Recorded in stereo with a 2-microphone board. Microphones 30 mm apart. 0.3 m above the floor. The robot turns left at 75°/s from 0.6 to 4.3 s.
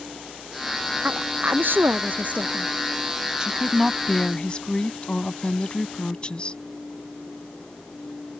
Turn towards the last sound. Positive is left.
turn(degrees=140)